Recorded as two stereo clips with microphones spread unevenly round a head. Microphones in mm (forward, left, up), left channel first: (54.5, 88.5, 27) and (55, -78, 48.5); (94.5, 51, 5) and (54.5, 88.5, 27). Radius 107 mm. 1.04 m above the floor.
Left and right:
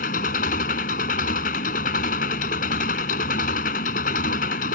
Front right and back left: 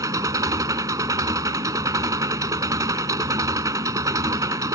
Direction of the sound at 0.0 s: 140° left.